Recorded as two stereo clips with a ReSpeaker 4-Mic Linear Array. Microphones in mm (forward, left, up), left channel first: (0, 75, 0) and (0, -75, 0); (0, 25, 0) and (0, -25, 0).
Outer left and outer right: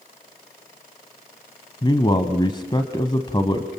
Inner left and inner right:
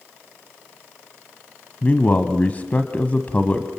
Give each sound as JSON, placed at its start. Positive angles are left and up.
{"t": 1.8, "sound": "a man speaking", "side_deg": 30, "distance_m": 1.2}